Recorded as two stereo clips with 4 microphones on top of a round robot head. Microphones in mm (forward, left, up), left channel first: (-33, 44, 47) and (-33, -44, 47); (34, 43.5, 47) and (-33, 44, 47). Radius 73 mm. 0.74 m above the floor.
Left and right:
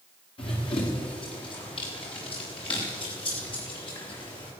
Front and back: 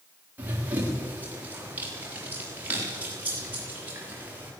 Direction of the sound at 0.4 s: 115° left.